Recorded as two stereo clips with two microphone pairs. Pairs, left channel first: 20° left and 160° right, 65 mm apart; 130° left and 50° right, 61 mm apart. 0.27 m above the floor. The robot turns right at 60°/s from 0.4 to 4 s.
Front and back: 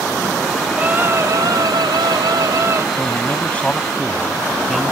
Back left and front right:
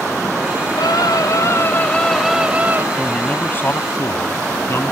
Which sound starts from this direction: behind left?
A scream, at 0.8 s.